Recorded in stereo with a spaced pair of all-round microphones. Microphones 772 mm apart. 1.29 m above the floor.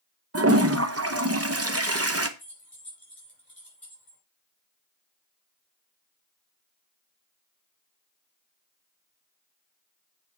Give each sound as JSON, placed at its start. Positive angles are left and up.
{"t": 0.3, "sound": "a toilet flushing", "side_deg": -20, "distance_m": 0.8}
{"t": 2.4, "sound": "keys jangling", "side_deg": 30, "distance_m": 5.0}